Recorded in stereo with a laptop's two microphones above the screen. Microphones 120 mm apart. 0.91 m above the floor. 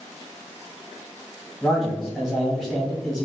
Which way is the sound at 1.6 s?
Centre (ahead or behind).